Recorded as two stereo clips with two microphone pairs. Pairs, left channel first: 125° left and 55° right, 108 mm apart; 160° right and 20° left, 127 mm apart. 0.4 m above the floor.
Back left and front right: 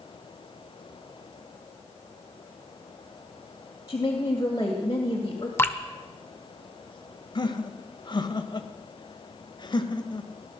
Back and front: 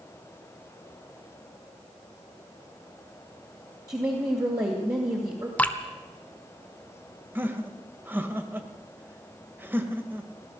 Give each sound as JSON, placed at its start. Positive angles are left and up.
{"t": 3.9, "sound": "a woman speaking", "azimuth_deg": 75, "distance_m": 2.5}
{"t": 5.6, "sound": "dripping", "azimuth_deg": 140, "distance_m": 0.9}
{"t": 7.3, "sound": "laughter", "azimuth_deg": 90, "distance_m": 1.6}